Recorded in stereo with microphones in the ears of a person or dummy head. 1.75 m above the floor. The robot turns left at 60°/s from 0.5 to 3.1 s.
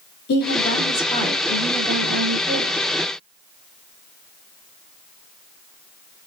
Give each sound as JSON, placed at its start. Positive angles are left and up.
{"t": 0.3, "sound": "a woman speaking", "azimuth_deg": 60, "distance_m": 2.0}